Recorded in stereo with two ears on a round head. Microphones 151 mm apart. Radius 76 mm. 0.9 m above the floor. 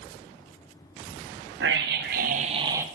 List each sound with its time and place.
1.6 s a scream: 70° right (ahead or behind), 1.1 m; by 2.9 s 10° right (ahead or behind), 0.6 m